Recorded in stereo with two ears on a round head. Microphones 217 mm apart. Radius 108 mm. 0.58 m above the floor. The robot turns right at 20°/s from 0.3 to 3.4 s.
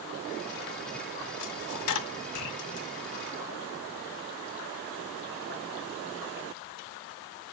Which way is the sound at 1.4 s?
90° left.